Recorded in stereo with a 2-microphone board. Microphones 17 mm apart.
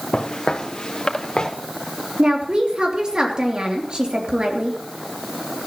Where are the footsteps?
65° left (ahead or behind), 1.5 m; by 1.5 s 55° left (ahead or behind), 2.5 m.